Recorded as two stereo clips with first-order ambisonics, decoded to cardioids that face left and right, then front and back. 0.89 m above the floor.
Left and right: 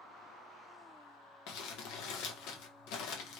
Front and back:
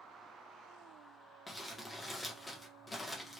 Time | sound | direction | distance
1.5 | crumpling | 80° left | 0.6 m